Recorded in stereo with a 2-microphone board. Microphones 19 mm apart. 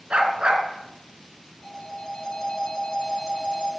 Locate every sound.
0.1 s a dog barking: 85° right, 2.5 m
1.6 s a phone ringing: 40° left (ahead or behind), 4 m